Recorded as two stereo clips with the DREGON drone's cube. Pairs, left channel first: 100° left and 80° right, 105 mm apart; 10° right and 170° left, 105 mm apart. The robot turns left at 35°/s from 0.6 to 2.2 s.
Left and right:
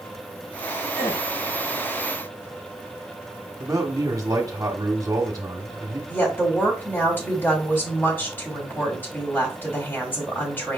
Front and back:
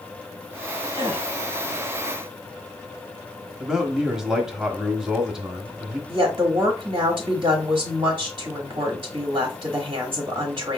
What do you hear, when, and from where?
0.9 s a gasp: 145° left, 3 m; by 1.3 s 135° left, 3 m
3.6 s a man speaking: 110° right, 0.9 m
6.1 s a woman speaking: 155° left, 1.1 m